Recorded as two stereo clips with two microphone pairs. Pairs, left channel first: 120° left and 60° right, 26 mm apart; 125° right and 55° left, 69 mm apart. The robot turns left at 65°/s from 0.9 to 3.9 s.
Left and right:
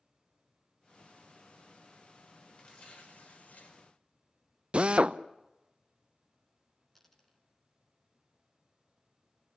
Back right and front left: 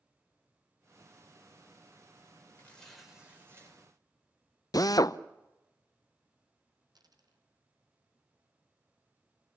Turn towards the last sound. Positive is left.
turn(degrees=40)